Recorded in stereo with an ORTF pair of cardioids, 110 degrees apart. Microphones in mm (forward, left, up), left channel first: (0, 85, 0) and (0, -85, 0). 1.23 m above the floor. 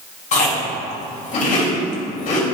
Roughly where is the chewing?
Ahead left.